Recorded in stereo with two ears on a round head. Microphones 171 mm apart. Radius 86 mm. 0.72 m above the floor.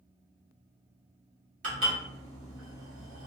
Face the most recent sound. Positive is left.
turn(degrees=-45)  # may be behind; listen again after turning